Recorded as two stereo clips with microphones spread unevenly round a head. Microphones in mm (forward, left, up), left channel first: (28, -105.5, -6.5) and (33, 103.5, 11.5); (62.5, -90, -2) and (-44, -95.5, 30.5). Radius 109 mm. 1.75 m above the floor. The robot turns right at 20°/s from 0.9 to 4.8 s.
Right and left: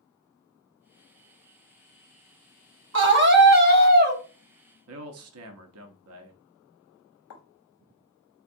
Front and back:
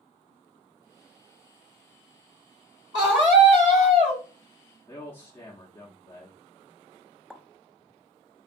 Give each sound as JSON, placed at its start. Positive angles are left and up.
{"t": 2.9, "sound": "a scream", "azimuth_deg": 120, "distance_m": 0.8}
{"t": 4.9, "sound": "a man speaking", "azimuth_deg": 85, "distance_m": 0.5}
{"t": 7.3, "sound": "a pop", "azimuth_deg": -90, "distance_m": 0.6}